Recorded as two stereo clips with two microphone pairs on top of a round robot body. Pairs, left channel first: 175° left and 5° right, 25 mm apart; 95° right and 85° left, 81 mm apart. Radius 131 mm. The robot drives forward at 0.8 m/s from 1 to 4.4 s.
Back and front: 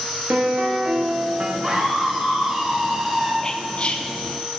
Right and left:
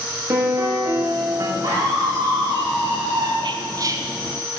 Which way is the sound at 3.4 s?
105° left.